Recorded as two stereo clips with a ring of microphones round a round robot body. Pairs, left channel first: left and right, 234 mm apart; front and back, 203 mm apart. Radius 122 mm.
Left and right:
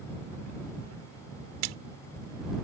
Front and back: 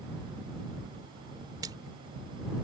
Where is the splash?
105° right.